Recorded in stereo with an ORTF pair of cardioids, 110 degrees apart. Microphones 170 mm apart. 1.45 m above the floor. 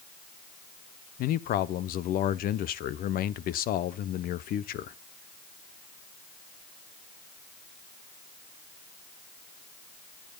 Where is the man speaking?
65° left, 0.9 m.